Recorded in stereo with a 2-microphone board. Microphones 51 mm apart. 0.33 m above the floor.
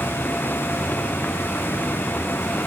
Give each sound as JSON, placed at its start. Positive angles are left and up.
{"t": 0.0, "sound": "a vehicle", "side_deg": 35}